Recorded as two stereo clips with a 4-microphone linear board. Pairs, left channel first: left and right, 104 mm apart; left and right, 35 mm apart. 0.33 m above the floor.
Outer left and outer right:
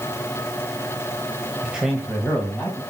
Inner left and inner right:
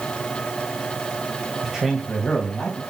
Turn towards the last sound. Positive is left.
turn(degrees=10)  # may be behind; listen again after turning